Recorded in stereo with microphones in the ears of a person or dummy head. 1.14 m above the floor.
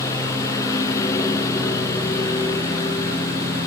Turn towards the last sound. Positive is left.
turn(degrees=15)  # may be behind; listen again after turning